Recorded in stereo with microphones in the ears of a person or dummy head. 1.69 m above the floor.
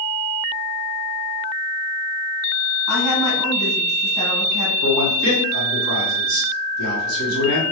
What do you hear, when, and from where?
2.9 s a woman speaking: 25° right (ahead or behind), 1.3 m
4.8 s a man speaking: 75° right (ahead or behind), 1.4 m